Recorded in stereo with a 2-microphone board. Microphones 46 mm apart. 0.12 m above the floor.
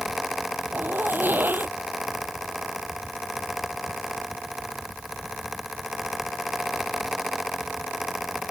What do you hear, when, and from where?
0.7 s a zipper: 50° right (ahead or behind)